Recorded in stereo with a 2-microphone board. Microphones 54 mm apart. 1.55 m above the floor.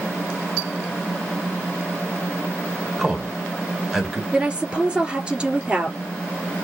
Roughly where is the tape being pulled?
I don't hear tape being pulled.